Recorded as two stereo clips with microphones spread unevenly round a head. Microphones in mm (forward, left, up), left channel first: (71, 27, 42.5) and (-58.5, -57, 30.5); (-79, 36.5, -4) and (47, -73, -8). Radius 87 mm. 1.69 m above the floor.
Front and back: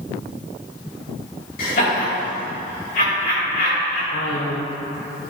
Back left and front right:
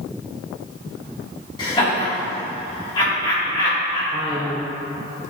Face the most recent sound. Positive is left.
turn(degrees=35)